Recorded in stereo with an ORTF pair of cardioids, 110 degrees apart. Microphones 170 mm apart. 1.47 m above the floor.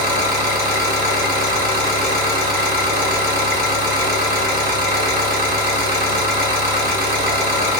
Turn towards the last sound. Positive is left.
turn(degrees=-70)